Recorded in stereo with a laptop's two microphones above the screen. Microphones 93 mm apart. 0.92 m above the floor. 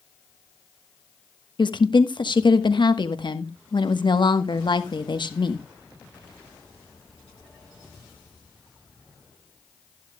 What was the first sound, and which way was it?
A woman speaking, 55° left (ahead or behind).